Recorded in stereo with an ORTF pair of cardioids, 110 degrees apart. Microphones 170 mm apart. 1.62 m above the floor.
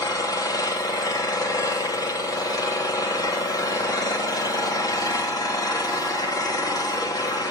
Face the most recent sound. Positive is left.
turn(degrees=20)